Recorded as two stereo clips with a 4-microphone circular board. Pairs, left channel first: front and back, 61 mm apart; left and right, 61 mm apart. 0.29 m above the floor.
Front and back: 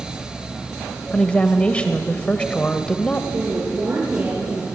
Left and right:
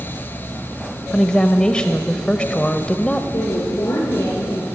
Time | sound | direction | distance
1.1 | a woman speaking | 40° left | 1.2 m
3.3 | a woman speaking | 120° left | 6.5 m